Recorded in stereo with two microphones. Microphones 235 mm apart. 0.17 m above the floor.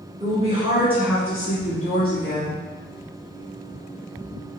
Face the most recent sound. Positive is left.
turn(degrees=55)  # may be behind; listen again after turning